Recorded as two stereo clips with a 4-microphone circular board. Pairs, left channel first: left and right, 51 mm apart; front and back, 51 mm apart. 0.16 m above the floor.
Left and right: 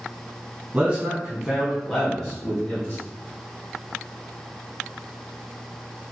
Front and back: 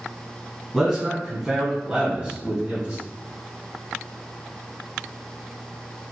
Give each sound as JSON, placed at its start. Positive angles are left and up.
{"t": 0.7, "sound": "a man speaking", "azimuth_deg": -105, "distance_m": 1.3}